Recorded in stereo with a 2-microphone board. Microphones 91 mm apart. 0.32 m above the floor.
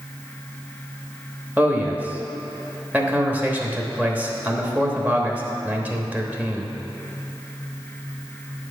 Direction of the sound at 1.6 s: 20° right (ahead or behind).